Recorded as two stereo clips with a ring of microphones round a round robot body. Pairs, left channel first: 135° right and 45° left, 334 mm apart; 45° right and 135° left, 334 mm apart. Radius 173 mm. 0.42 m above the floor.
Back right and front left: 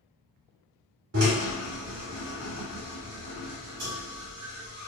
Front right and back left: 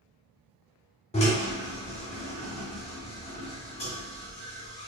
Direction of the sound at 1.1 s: 20° left.